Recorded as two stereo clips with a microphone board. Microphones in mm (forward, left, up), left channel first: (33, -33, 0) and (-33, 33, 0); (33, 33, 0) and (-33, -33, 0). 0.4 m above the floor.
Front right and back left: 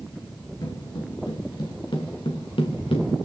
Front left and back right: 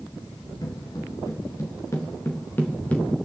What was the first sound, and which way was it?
Footsteps, straight ahead.